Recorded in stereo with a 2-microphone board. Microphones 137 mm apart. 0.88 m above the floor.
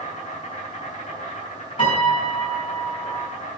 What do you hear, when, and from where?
0.0 s an insect: 50° left (ahead or behind), 5 m
1.8 s a piano: 40° left (ahead or behind), 4.5 m